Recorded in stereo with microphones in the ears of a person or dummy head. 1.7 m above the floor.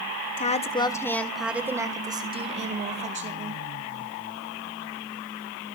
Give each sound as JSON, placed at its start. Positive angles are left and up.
{"t": 0.4, "sound": "a woman speaking", "side_deg": 40, "distance_m": 1.5}